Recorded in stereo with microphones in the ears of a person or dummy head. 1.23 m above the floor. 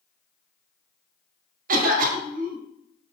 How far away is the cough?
About 1.2 m.